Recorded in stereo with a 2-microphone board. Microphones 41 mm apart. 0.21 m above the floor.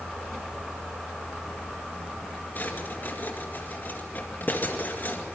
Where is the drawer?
50° left (ahead or behind), 2 m.